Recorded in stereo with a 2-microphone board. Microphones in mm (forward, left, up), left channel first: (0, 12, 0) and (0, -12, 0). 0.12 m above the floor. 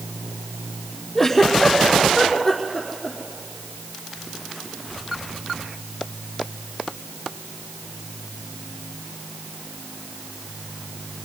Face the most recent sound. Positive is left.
turn(degrees=10)  # may be behind; listen again after turning